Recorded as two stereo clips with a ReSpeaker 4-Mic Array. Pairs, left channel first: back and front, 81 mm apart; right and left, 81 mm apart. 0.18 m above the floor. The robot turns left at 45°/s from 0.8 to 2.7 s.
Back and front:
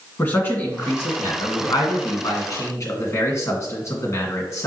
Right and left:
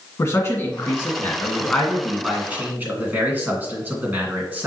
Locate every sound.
0.2 s a man speaking: 130° right, 1.9 m; by 4.7 s 145° left, 1.9 m